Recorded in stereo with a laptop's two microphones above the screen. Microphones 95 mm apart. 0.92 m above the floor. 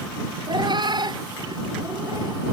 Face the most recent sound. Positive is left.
turn(degrees=-40)  # may be behind; listen again after turning